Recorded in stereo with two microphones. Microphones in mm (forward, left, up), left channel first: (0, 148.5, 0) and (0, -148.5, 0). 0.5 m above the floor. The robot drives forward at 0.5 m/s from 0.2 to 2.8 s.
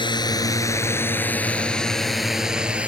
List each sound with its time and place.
0.0 s a drone: 15° left (ahead or behind); by 2.9 s 5° right (ahead or behind)